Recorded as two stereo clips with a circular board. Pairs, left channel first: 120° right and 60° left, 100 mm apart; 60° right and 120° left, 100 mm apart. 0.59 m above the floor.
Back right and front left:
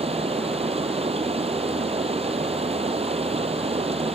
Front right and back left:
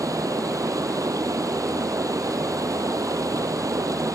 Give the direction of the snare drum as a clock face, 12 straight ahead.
No snare drum in this recording.